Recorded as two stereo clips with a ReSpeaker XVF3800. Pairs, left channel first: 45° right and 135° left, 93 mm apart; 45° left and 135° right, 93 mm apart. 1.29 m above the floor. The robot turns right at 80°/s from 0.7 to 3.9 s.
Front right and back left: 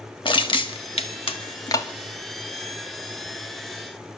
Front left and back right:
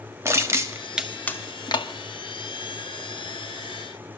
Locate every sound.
0.2 s crushing: 75° right, 2.0 m; by 1.9 s 20° left, 2.0 m